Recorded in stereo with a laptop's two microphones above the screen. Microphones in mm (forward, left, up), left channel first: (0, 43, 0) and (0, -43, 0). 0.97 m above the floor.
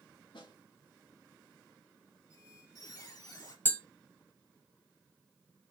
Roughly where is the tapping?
Left.